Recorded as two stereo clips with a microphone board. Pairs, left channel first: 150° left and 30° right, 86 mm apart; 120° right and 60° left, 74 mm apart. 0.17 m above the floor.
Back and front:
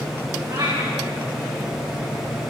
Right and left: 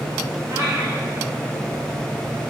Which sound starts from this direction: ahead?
A cat meowing, at 0.5 s.